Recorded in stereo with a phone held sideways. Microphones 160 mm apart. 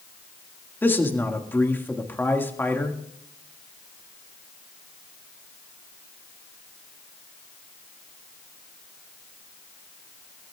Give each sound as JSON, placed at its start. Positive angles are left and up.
{"t": 0.8, "sound": "a man speaking", "side_deg": 15, "distance_m": 1.8}